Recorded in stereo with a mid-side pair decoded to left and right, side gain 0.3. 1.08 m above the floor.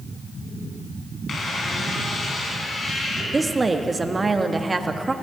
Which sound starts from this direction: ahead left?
A squeak, at 1.3 s.